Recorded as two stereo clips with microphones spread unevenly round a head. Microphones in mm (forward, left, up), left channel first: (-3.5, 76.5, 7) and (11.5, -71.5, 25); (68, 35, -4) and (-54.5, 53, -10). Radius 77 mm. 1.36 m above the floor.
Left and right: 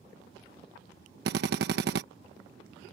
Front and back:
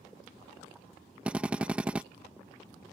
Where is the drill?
105° right.